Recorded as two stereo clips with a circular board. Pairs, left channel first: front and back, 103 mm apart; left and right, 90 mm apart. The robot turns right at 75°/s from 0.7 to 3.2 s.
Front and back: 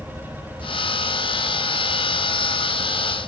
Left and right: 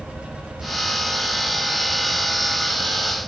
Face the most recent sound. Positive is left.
turn(degrees=-150)